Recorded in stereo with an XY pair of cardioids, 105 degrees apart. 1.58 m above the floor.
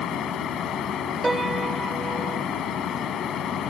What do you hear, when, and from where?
0.0 s a fan: 65° left
1.2 s a piano: 20° right